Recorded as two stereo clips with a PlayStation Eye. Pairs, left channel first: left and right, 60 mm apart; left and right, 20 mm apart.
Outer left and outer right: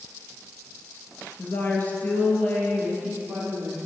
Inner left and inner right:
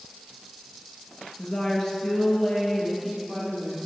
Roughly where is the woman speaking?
Left.